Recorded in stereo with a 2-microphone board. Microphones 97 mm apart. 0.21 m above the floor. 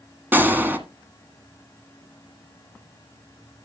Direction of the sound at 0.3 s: 20° right (ahead or behind).